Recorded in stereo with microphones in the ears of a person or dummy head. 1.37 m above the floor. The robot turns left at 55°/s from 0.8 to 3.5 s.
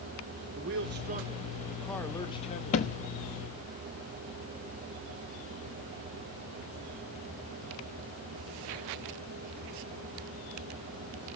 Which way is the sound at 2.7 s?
35° left (ahead or behind).